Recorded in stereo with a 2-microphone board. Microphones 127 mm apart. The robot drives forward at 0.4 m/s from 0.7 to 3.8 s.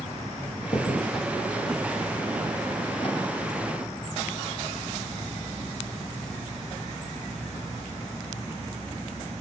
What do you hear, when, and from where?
0.6 s a crack: 35° left (ahead or behind), 2.5 m; by 3.2 s 45° left (ahead or behind), 2.0 m